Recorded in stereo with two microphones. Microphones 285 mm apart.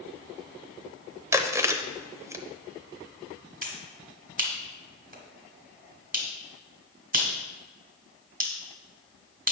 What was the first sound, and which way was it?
Chewing, 10° right (ahead or behind).